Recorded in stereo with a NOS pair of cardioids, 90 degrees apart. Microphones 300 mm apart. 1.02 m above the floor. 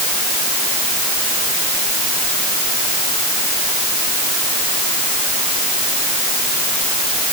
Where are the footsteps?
I don't hear footsteps.